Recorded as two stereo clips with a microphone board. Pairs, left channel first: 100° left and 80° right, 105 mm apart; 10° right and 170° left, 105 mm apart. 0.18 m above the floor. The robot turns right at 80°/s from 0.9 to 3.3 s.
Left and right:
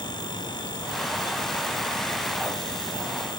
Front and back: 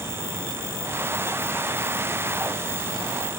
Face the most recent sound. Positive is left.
No sound to turn to.